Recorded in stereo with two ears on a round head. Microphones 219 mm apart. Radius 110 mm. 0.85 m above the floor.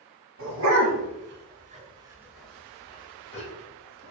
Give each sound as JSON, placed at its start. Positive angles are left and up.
{"t": 0.4, "sound": "a dog barking", "side_deg": -65, "distance_m": 1.1}